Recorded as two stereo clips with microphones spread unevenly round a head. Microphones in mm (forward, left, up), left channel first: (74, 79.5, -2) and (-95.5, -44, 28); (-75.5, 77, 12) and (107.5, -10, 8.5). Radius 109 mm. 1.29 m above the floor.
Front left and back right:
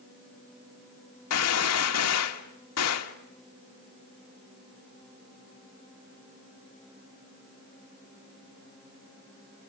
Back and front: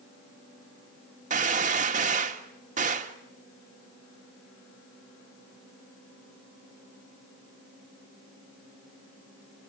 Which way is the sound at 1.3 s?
25° left.